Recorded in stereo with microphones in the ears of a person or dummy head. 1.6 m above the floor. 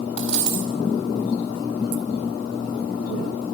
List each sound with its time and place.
0.2 s a dropped coin: 5° right (ahead or behind), 2 m